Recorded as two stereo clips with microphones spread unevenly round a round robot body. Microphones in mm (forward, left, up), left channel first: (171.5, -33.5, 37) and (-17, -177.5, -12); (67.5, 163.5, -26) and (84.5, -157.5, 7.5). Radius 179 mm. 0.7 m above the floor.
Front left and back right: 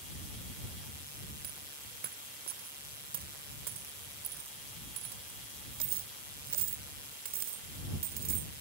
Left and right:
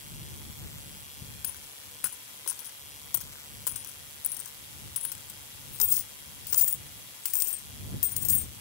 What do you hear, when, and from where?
1.4 s a dropped coin: 150° left